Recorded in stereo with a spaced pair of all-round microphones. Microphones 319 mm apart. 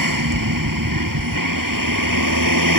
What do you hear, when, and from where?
0.0 s a vehicle: 90° right; by 2.8 s 80° right